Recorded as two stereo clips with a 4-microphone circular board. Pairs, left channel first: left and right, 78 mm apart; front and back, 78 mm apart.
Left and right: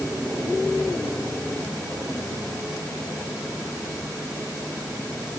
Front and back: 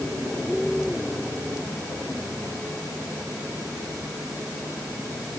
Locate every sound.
Only background noise.